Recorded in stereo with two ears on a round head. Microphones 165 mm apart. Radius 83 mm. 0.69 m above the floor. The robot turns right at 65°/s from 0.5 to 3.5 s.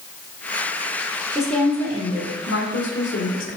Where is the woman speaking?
5° right, 1.8 m; by 3.6 s 135° left, 1.8 m.